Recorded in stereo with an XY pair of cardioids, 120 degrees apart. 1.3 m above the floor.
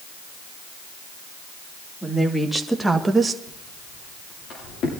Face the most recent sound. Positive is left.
turn(degrees=65)